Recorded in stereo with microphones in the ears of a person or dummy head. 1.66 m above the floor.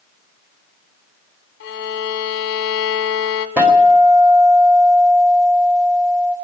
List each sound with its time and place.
1.6 s a violin: 55° left (ahead or behind), 1.4 m
3.6 s a guitar: 5° right (ahead or behind), 2 m